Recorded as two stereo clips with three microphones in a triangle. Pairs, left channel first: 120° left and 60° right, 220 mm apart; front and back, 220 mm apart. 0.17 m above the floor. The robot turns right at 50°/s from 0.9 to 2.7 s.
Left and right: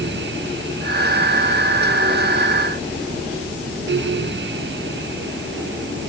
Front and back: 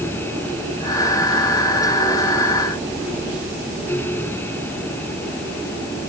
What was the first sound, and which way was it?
Only background noise.